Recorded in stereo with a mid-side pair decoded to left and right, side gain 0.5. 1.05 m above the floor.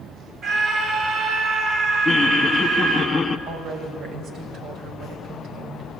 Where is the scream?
50° right, 7.5 m.